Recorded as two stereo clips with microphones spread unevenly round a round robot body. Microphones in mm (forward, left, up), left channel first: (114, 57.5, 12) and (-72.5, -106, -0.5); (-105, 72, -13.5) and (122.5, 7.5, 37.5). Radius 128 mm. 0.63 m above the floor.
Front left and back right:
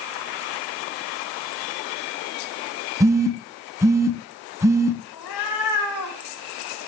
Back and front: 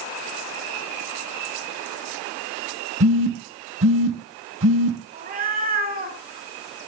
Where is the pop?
No pop in this recording.